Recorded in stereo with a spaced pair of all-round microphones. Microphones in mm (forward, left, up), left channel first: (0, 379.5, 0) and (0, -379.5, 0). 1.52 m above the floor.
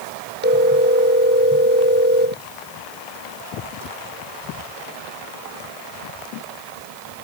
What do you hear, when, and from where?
0.4 s a phone ringing: 15° right (ahead or behind)